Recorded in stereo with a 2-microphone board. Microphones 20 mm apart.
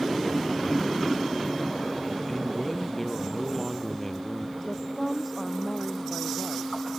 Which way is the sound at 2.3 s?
15° left (ahead or behind).